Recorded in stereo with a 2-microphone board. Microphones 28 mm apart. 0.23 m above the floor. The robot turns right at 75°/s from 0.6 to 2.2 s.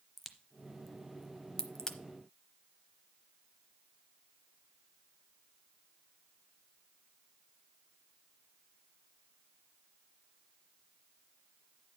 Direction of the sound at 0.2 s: Centre (ahead or behind).